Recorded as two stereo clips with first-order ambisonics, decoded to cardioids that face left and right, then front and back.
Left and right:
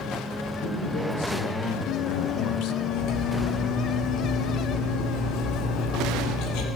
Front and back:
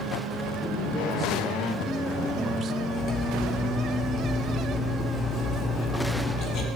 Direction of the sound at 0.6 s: 70° left.